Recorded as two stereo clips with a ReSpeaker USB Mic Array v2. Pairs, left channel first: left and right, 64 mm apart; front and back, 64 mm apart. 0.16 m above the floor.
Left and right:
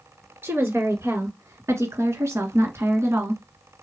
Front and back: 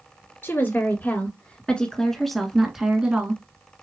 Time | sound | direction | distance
0.4 | a woman speaking | 45° right | 2.5 m